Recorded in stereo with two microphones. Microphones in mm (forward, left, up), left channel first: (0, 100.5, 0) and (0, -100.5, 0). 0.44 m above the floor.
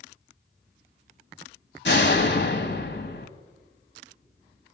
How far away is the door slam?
About 1.7 m.